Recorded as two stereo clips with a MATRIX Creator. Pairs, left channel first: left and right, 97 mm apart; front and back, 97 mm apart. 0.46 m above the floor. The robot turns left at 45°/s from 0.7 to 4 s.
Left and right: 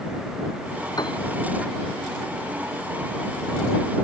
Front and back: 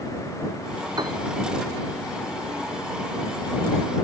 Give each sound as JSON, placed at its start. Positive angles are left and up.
{"t": 1.0, "sound": "a piano", "azimuth_deg": 135}